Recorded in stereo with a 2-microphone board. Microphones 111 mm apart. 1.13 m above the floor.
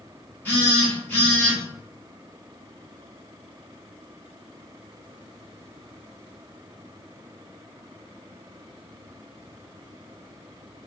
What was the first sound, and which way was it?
A phone buzzing, 15° left (ahead or behind).